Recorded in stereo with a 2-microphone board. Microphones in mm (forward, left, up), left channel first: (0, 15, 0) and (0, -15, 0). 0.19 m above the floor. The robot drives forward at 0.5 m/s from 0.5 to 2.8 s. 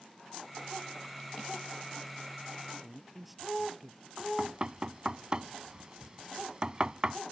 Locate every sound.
2.8 s a man speaking: 5° right (ahead or behind)
4.2 s knocking: 30° right (ahead or behind)